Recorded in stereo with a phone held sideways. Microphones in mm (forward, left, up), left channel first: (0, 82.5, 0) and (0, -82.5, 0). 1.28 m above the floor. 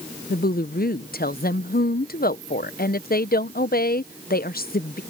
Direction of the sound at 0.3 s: 65° left (ahead or behind).